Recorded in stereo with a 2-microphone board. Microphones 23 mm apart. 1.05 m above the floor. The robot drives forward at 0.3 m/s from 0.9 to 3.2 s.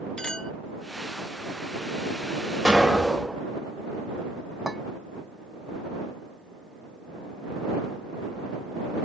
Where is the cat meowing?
I don't hear a cat meowing.